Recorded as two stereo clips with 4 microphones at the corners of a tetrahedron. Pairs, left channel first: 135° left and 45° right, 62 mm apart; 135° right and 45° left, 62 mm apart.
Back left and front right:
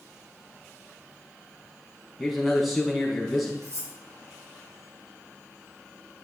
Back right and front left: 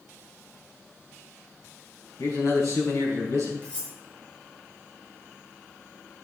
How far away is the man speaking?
About 4.5 m.